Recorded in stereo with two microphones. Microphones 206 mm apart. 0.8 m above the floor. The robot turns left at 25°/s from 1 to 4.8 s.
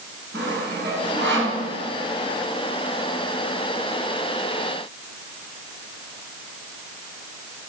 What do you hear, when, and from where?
0.3 s sawing: 60° right (ahead or behind), 6 m; by 1.6 s 75° right (ahead or behind), 6 m